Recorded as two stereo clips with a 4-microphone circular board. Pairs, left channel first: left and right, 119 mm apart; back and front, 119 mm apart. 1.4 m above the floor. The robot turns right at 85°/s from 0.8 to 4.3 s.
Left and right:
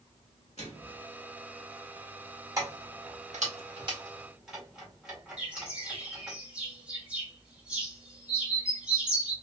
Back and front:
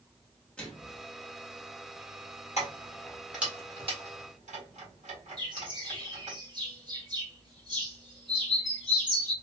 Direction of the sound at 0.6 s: 100° left.